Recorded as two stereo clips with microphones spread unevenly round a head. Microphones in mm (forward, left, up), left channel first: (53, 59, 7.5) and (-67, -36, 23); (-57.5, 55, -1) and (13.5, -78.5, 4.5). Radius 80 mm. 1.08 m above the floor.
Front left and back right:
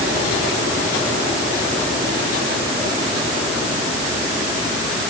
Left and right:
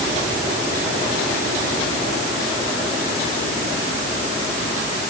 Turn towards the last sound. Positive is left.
No sound to turn to.